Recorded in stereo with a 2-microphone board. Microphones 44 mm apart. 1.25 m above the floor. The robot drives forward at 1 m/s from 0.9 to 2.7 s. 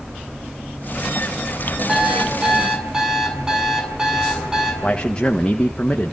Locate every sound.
1.9 s an alarm clock: 15° right (ahead or behind), 6 m; by 4.7 s 10° right (ahead or behind), 7 m
4.8 s a man speaking: 25° left (ahead or behind), 1.5 m